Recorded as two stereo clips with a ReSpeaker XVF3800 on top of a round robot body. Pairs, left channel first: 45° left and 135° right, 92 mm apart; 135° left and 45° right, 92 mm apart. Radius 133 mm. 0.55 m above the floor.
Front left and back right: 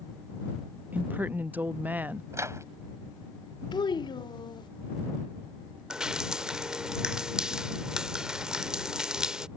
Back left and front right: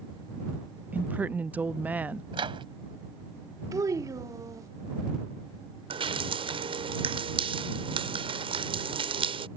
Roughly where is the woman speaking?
Right.